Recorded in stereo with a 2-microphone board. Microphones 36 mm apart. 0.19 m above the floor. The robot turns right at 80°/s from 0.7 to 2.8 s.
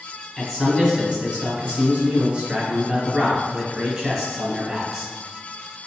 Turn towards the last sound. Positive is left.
turn(degrees=-25)